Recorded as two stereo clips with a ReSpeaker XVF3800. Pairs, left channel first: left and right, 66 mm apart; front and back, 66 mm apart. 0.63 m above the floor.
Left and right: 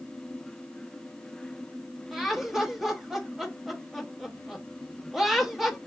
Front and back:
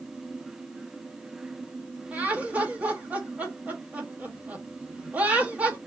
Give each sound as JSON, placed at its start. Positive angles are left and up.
{"t": 2.1, "sound": "laughter", "azimuth_deg": -165, "distance_m": 1.1}